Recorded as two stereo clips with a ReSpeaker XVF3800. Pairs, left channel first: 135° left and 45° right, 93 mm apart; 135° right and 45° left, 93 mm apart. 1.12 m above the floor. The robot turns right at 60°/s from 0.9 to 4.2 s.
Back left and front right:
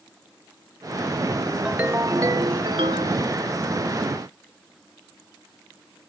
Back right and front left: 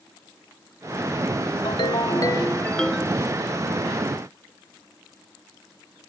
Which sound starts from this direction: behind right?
A ringtone, at 1.6 s.